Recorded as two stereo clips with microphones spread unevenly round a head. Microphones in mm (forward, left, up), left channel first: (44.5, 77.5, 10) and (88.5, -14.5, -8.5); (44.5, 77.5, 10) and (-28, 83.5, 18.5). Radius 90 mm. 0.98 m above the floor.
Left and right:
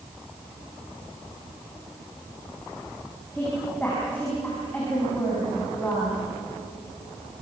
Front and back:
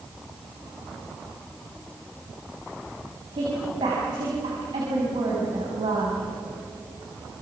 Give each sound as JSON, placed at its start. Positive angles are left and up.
{"t": 3.3, "sound": "a woman speaking", "azimuth_deg": -165, "distance_m": 6.5}